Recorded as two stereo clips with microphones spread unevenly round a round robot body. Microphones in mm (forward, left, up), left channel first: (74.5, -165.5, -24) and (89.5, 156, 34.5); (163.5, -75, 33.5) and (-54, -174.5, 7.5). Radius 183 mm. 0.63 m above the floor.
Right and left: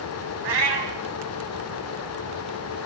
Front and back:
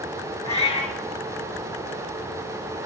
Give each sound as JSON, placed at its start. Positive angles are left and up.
{"t": 0.4, "sound": "a cat meowing", "azimuth_deg": 105, "distance_m": 3.0}